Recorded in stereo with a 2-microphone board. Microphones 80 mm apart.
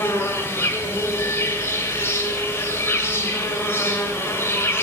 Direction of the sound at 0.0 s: 30° left (ahead or behind).